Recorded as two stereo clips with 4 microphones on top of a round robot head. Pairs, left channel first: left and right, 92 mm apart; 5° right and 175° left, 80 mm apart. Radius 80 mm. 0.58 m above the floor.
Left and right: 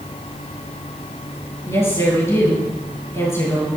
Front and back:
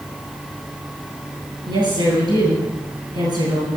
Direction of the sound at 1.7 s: 145° left.